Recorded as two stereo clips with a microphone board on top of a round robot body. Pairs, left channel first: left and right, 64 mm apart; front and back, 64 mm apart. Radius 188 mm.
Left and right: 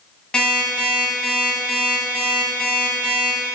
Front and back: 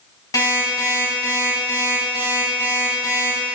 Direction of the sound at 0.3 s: 10° left.